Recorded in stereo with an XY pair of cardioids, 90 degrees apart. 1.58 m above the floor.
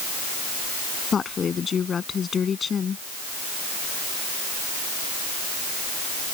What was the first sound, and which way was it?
A woman speaking, 50° left.